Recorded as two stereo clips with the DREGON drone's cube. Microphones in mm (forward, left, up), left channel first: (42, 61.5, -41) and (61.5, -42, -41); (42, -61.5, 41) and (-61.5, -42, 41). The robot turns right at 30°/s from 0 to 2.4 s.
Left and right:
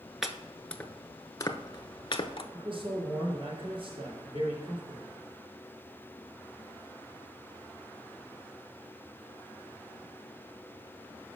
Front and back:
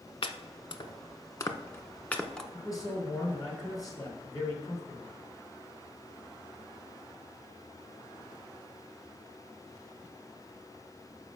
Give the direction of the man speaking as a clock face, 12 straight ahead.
2 o'clock.